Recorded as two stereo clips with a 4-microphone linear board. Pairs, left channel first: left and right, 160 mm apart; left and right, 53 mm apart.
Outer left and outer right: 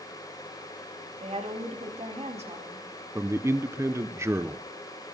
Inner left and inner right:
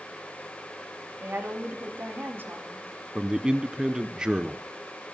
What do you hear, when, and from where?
1.2 s a woman speaking: 40° right (ahead or behind), 2.5 m
3.1 s a man speaking: 15° right (ahead or behind), 0.5 m